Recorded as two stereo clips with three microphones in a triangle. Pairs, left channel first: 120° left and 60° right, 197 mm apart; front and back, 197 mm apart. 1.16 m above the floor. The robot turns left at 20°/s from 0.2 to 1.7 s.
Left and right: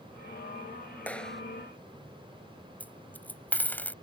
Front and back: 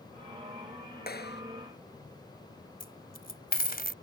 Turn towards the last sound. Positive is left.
turn(degrees=40)